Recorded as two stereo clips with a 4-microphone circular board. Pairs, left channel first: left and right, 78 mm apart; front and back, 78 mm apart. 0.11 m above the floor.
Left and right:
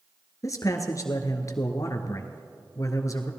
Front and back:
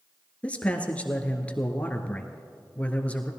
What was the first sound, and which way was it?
A man speaking, 70° left.